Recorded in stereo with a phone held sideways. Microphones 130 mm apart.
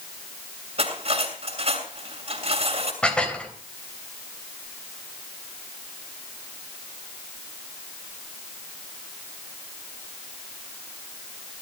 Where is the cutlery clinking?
50° right (ahead or behind), 6.5 m.